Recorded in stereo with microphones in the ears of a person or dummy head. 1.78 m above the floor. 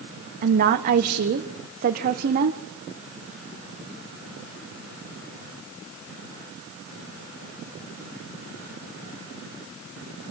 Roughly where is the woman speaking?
Right.